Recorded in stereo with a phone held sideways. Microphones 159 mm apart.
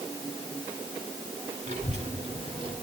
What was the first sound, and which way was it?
A child speaking, 45° right (ahead or behind).